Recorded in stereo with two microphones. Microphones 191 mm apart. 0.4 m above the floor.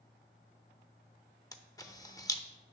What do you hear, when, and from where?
1.5 s a camera shutter: 20° left (ahead or behind), 0.5 m